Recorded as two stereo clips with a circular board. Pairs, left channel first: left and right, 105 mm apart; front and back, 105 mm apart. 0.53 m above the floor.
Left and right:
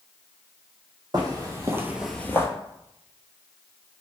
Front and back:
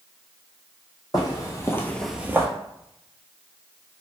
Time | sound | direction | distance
1.1 | footsteps | 45° right | 1.1 m